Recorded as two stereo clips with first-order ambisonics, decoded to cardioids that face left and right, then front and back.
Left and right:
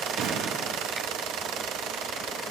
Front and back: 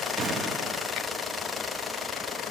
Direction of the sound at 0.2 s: 125° right.